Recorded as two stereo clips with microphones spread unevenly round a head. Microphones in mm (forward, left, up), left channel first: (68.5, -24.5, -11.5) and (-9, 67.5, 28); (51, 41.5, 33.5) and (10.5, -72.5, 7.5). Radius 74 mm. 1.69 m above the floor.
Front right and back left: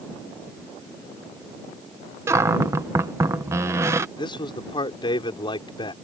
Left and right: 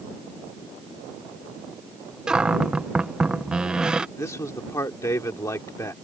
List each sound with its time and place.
2.3 s a cupboard door: 150° left
4.2 s a man speaking: 5° left